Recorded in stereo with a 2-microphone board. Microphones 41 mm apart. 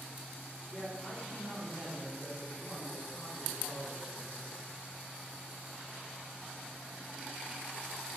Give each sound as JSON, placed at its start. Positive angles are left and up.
{"t": 0.7, "sound": "a man speaking", "side_deg": 30, "distance_m": 1.2}